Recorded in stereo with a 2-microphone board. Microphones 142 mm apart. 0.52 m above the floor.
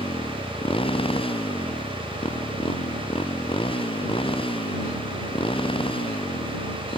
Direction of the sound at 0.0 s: 35° left (ahead or behind).